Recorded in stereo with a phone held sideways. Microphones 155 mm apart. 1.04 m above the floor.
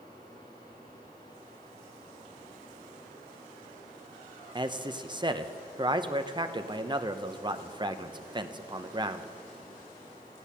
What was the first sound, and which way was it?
A fan, 25° left (ahead or behind).